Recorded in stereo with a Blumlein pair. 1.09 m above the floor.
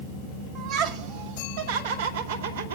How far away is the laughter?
About 2.5 m.